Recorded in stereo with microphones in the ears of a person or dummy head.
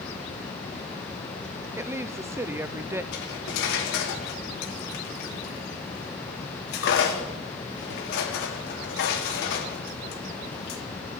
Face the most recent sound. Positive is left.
turn(degrees=65)  # may be behind; listen again after turning